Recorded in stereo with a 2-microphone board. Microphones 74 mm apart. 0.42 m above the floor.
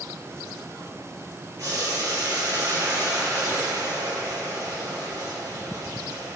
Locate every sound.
1.6 s boiling: 55° right (ahead or behind), 5 m